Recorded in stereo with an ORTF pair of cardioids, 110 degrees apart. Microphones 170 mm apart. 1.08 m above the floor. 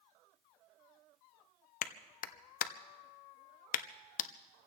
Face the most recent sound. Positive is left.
turn(degrees=55)